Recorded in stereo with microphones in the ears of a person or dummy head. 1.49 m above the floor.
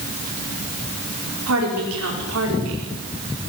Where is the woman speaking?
80° right, 5 m.